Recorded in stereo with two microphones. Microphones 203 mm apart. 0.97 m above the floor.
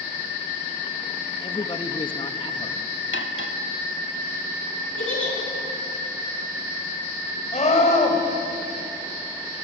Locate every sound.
1.4 s a man speaking: 25° left (ahead or behind), 1.3 m
3.1 s cutlery clinking: 70° left (ahead or behind), 1.4 m
5.0 s a giggle: 80° left, 10 m
7.5 s a scream: 35° left (ahead or behind), 4.5 m